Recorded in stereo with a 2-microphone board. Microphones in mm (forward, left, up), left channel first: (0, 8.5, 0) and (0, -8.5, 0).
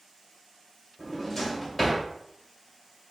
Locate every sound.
1.0 s a drawer: 10° left (ahead or behind), 2 m